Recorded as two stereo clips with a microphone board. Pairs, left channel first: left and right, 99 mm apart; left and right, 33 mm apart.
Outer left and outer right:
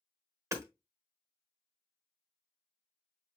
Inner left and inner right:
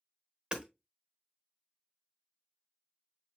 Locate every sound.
0.5 s hammering: 30° right (ahead or behind), 1.4 m